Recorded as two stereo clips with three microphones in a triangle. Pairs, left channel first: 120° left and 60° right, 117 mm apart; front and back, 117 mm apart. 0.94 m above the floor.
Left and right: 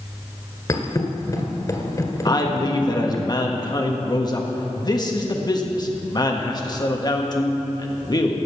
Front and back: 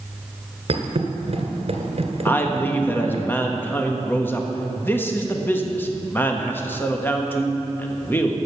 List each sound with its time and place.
0.7 s a thud: 175° left, 1.5 m
2.2 s a man speaking: 70° left, 1.3 m